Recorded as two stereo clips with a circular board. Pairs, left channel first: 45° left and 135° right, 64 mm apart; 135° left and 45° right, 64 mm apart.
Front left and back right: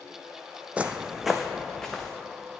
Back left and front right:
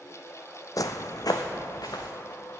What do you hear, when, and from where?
0.8 s footsteps: 160° left, 0.6 m; by 2.1 s 130° left, 1.4 m